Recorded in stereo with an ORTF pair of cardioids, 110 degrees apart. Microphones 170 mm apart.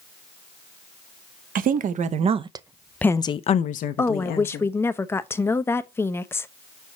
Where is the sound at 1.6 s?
55° right, 1.0 m; by 4.7 s 70° left, 1.2 m.